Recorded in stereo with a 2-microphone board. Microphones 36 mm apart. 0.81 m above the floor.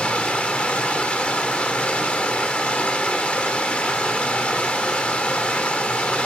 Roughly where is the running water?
Left.